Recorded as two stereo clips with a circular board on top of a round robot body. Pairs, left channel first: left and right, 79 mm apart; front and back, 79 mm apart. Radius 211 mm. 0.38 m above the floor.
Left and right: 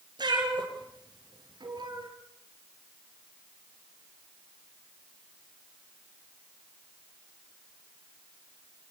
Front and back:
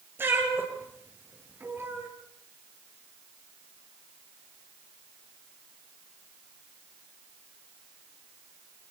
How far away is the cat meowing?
About 5 m.